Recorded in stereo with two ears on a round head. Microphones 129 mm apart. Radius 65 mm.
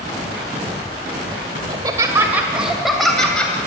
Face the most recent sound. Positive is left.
turn(degrees=10)  # may be behind; listen again after turning